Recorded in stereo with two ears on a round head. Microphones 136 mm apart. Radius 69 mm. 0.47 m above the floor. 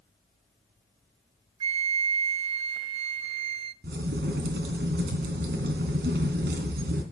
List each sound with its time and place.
1.6 s a flute: 40° right (ahead or behind), 0.6 m
3.8 s a crack: 75° right (ahead or behind), 3 m